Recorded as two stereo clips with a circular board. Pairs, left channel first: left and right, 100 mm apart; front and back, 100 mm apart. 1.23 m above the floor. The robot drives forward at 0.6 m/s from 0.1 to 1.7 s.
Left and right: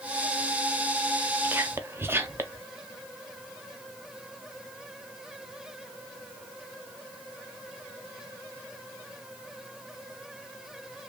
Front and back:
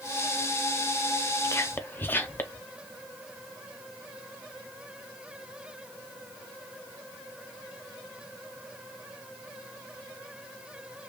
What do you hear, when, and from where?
1.4 s whispering: 30° right, 0.6 m; by 2.7 s 50° right, 0.5 m